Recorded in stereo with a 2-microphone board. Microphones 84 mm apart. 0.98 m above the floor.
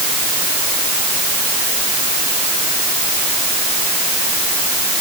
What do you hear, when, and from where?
Only background noise.